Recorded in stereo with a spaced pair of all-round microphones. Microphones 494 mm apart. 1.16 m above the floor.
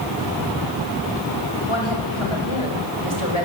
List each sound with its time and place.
1.7 s a woman speaking: 70° left (ahead or behind), 6 m; by 3.5 s 85° left, 5 m